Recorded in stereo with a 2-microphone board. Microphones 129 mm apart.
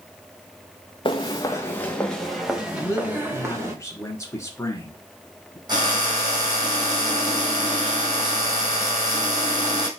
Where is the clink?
No clink in this recording.